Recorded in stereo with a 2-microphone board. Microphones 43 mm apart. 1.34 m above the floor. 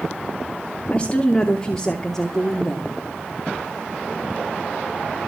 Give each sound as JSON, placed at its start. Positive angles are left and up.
{"t": 0.9, "sound": "a woman speaking", "side_deg": 25, "distance_m": 2.5}